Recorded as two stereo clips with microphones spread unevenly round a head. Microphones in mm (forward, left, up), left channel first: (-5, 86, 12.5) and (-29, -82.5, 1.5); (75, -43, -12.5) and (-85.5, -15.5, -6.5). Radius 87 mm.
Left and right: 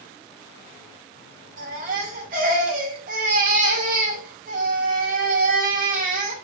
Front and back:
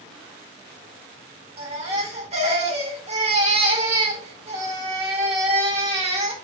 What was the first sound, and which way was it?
A baby crying, 140° right.